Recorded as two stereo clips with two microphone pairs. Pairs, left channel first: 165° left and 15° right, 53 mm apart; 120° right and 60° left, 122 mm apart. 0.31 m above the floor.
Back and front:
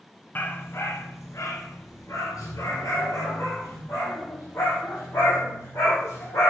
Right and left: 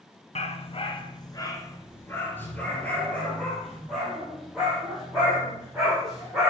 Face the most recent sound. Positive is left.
turn(degrees=150)